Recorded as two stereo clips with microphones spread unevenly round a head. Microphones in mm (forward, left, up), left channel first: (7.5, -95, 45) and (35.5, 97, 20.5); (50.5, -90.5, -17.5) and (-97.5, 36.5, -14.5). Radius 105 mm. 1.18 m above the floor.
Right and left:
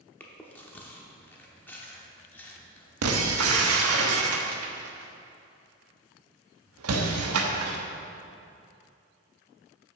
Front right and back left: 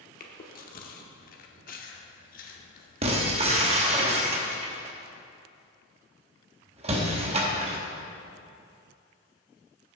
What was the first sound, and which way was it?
Chewing, 30° right.